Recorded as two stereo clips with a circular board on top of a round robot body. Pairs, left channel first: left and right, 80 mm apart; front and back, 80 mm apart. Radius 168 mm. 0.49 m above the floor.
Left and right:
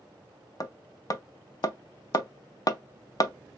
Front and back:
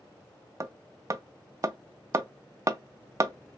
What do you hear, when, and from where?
0.6 s hammering: 130° left, 0.6 m